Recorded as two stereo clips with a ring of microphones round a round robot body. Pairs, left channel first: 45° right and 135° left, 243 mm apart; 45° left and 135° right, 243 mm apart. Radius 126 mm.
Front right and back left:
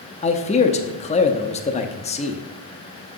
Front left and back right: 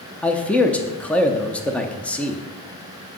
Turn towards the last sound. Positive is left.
turn(degrees=-35)